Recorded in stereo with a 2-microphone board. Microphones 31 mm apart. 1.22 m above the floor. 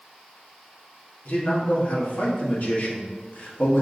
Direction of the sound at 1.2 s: 55° left (ahead or behind).